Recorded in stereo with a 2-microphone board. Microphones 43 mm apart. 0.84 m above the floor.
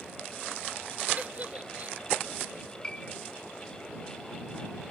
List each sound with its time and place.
1.2 s a giggle: 35° right (ahead or behind)
2.8 s a piano: 20° left (ahead or behind)